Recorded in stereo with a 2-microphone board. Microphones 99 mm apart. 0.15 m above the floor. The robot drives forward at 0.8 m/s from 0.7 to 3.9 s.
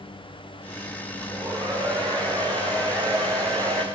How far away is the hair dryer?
About 10 m.